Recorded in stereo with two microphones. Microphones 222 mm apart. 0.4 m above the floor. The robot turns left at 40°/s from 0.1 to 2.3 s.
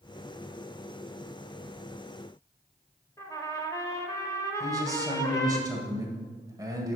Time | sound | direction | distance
3.2 | a trumpet | 15° left (ahead or behind) | 1.0 m
4.6 | a man speaking | 15° right (ahead or behind) | 1.8 m